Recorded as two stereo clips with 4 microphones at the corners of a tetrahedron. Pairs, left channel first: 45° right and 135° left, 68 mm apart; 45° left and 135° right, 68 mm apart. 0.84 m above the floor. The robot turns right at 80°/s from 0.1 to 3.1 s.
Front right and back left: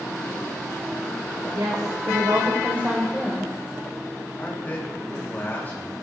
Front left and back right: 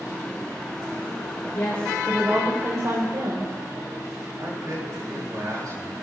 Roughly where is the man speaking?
Right.